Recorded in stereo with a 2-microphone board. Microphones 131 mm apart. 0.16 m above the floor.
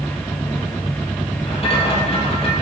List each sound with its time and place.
1.5 s a rattle: 50° left (ahead or behind), 2 m